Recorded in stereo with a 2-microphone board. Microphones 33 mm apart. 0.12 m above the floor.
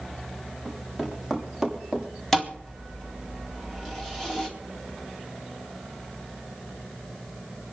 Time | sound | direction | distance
0.7 | running footsteps | centre (ahead or behind) | 6 m
2.3 | a thud | 5° left (ahead or behind) | 3.5 m